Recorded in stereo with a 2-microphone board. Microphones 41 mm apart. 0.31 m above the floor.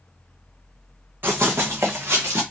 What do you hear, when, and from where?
1.2 s running footsteps: 60° right (ahead or behind), 1.1 m; by 2.4 s 80° right, 1.5 m